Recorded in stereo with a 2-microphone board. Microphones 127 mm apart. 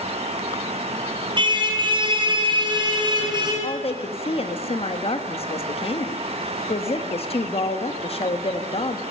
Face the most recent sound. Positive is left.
turn(degrees=50)  # may be behind; listen again after turning